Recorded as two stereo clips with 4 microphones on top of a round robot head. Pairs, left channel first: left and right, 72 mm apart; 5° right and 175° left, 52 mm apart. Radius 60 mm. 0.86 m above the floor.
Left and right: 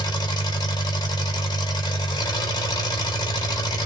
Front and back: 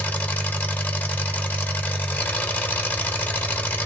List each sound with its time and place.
0.0 s an engine running: 55° left, 1.1 m